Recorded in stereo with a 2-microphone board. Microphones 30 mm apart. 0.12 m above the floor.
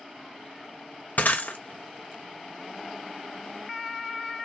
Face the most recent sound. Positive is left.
turn(degrees=60)  # may be behind; listen again after turning